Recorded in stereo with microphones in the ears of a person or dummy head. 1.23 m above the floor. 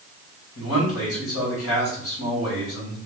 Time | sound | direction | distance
0.6 | a man speaking | 75° left (ahead or behind) | 1.9 m